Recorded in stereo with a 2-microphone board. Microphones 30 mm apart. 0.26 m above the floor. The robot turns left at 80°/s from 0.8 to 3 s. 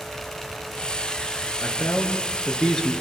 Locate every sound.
1.6 s a man speaking: 110° left, 4 m; by 2.9 s 5° left, 4 m